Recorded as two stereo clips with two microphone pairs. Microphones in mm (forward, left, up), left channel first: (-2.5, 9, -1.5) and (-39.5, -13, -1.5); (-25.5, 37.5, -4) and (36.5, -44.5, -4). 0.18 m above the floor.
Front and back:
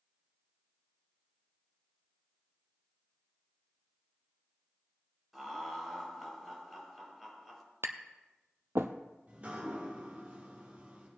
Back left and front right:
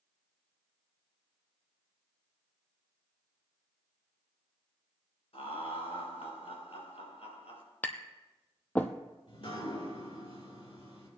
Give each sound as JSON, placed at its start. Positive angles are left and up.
{"t": 5.3, "sound": "laughter", "azimuth_deg": 125, "distance_m": 4.5}
{"t": 7.8, "sound": "tapping", "azimuth_deg": -160, "distance_m": 0.9}
{"t": 9.3, "sound": "dripping", "azimuth_deg": 155, "distance_m": 5.5}